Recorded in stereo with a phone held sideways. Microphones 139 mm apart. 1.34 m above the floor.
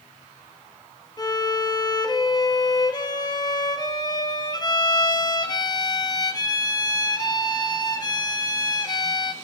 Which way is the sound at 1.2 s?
30° left (ahead or behind).